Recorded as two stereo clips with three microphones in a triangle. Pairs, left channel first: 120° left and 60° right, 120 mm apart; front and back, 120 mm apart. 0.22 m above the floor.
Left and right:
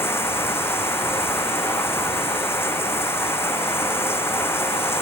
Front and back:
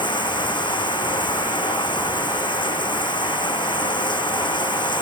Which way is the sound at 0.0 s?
50° left.